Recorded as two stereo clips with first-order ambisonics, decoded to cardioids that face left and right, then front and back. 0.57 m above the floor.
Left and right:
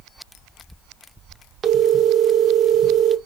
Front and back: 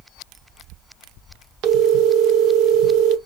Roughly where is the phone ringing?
Behind right.